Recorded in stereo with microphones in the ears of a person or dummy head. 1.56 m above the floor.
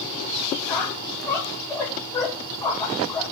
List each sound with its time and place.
0.7 s a squeak: 10° left (ahead or behind), 0.7 m